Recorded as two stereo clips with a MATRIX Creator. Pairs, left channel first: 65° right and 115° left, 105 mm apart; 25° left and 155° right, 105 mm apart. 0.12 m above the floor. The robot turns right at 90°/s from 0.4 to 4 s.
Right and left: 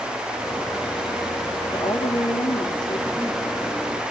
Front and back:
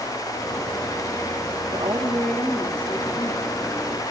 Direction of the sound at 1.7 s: 115° right.